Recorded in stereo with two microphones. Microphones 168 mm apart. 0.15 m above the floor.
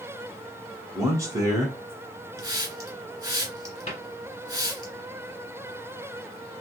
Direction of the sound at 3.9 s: 40° left (ahead or behind).